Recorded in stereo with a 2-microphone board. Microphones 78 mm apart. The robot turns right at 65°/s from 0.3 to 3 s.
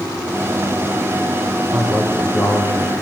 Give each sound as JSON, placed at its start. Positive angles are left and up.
{"t": 1.7, "sound": "a man speaking", "azimuth_deg": 5, "distance_m": 6.5}